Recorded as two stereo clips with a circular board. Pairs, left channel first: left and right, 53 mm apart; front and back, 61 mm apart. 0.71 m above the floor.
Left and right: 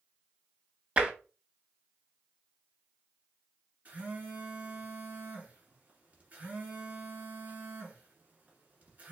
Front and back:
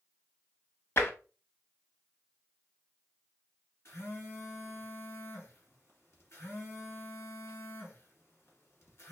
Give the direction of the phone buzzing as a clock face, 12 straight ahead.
1 o'clock.